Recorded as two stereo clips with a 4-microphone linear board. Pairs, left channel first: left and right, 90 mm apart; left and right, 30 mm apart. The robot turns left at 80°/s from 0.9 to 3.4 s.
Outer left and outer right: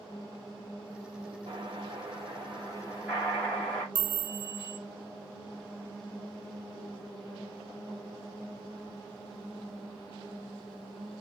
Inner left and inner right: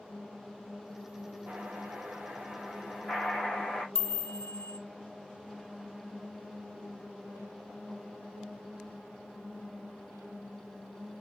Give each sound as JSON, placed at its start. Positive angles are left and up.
{"t": 1.5, "sound": "an explosion", "azimuth_deg": -45, "distance_m": 3.0}
{"t": 4.0, "sound": "a chime", "side_deg": 30, "distance_m": 0.8}